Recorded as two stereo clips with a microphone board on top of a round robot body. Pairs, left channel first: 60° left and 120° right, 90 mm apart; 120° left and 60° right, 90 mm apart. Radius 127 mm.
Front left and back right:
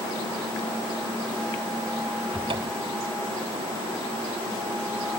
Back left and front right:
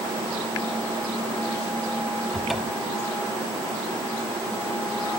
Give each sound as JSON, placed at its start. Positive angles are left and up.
{"t": 2.3, "sound": "a cupboard door", "azimuth_deg": -150}